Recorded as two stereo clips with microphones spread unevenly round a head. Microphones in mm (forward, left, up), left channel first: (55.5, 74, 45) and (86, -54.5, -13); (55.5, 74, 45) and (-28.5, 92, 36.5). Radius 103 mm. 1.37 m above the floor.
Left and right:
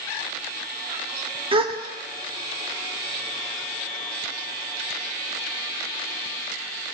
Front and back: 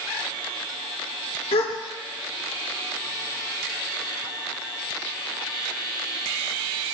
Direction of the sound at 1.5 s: 40° right.